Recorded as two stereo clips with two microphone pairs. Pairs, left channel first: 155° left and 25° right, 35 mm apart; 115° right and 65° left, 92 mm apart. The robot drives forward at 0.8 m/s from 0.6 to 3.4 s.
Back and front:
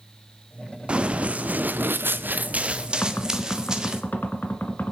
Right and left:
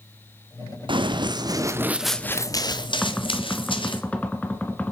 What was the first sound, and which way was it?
Running footsteps, 35° left.